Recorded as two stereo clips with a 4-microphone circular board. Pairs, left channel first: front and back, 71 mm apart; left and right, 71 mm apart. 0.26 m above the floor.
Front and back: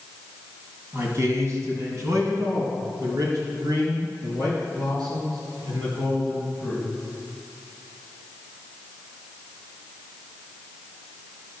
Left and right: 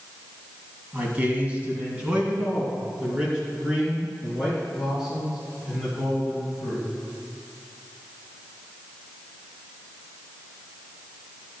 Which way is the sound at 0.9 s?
145° right.